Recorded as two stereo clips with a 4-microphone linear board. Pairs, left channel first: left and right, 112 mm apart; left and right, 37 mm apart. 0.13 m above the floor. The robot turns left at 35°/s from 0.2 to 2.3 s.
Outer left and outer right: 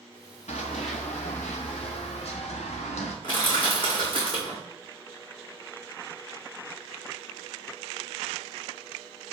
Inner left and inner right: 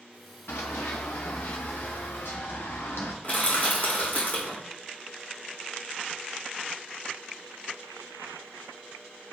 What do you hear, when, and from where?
0.5 s running footsteps: 85° left, 1.0 m; by 3.1 s 80° left, 1.8 m
3.2 s crushing: 45° left (ahead or behind), 2.5 m